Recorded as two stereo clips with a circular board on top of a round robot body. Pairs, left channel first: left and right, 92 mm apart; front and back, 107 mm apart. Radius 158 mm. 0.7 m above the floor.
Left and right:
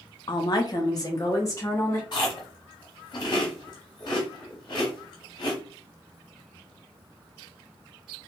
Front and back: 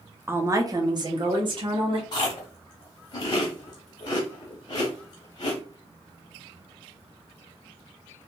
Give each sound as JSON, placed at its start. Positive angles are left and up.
{"t": 0.3, "sound": "a woman speaking", "azimuth_deg": 115, "distance_m": 0.7}
{"t": 2.1, "sound": "chewing", "azimuth_deg": 50, "distance_m": 0.7}